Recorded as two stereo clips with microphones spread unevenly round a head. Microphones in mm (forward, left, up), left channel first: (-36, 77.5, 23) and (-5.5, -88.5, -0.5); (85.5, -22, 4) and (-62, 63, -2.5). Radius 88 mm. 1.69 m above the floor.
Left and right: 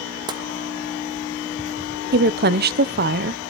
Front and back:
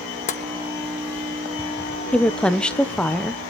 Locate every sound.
0.3 s tapping: 10° right, 1.0 m
2.1 s a woman speaking: 115° right, 1.0 m